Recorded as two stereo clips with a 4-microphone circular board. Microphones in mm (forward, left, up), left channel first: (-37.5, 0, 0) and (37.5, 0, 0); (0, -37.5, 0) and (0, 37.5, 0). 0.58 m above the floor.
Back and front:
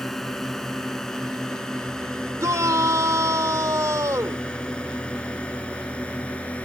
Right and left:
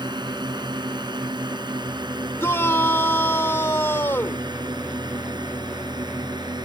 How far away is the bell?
No bell in this recording.